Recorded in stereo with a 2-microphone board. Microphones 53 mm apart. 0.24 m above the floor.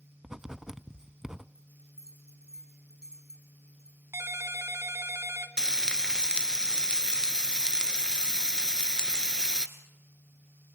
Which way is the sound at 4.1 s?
55° right (ahead or behind).